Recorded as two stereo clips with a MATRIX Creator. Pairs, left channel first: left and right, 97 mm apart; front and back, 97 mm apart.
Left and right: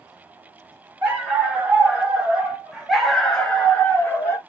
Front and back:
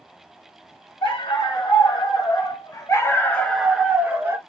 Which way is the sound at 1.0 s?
15° right.